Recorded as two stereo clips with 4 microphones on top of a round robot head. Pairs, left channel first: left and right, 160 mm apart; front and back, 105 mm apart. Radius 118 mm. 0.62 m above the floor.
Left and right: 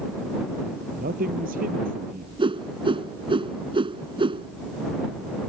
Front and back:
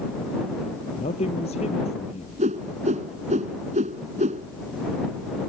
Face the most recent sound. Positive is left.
turn(degrees=-150)